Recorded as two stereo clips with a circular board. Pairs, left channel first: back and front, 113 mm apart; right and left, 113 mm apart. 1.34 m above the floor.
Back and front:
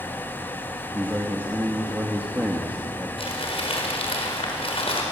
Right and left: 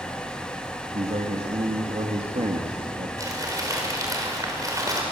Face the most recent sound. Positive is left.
turn(degrees=150)